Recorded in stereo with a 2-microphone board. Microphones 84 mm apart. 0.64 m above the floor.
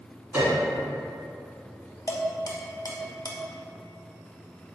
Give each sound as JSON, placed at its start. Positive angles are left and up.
{"t": 0.3, "sound": "a piano", "side_deg": -25, "distance_m": 1.4}
{"t": 2.1, "sound": "dishes clattering", "side_deg": 45, "distance_m": 0.5}